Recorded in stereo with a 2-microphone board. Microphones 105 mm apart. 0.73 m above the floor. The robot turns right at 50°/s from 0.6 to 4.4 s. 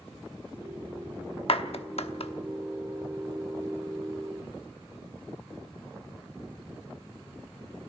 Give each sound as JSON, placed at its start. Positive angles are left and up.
{"t": 1.5, "sound": "a clap", "side_deg": 60, "distance_m": 0.9}